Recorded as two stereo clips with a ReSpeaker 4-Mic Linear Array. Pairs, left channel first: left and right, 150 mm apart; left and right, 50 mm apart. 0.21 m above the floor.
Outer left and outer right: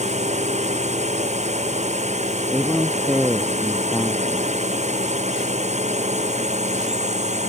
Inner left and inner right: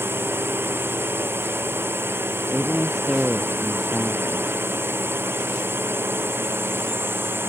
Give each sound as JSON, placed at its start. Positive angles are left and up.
{"t": 0.0, "sound": "a drone", "side_deg": -50}
{"t": 2.5, "sound": "a man speaking", "side_deg": 0}